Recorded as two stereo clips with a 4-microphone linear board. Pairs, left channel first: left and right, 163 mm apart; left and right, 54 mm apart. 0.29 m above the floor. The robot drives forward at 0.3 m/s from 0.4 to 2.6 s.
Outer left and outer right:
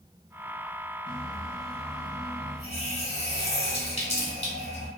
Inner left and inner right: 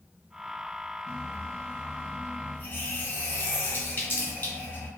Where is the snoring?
No snoring in this recording.